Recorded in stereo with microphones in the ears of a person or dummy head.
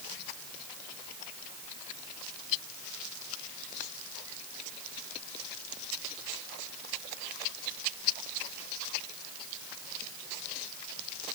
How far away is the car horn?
I don't hear a car horn.